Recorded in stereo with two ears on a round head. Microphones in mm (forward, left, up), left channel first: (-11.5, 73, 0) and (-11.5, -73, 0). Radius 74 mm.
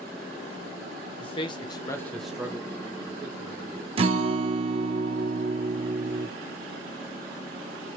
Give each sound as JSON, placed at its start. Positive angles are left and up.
{"t": 1.2, "sound": "a man speaking", "side_deg": 35, "distance_m": 1.0}
{"t": 4.0, "sound": "a guitar", "side_deg": -35, "distance_m": 0.7}